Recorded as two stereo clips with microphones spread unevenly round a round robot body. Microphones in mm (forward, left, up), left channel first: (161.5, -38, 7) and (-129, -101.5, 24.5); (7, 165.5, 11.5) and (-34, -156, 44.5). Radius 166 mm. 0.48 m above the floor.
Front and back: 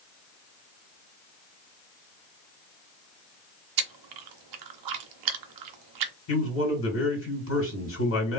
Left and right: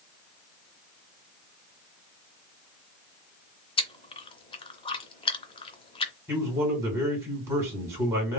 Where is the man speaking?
15° right, 2.5 m.